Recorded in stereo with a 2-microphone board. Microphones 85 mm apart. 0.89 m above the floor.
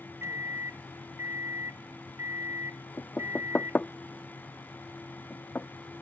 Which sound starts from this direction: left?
Knocking, at 3.0 s.